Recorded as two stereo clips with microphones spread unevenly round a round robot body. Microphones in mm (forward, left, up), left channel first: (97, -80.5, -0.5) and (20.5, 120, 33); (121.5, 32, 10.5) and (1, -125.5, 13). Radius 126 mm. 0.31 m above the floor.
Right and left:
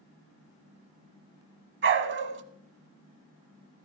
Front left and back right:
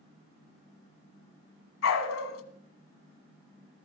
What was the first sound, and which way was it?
A dog barking, 75° left.